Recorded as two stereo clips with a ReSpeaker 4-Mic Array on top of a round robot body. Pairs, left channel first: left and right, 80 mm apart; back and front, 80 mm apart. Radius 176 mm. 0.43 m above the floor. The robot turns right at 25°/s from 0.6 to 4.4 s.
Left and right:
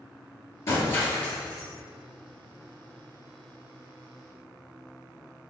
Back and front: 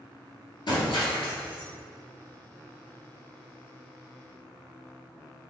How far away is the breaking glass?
About 1.9 m.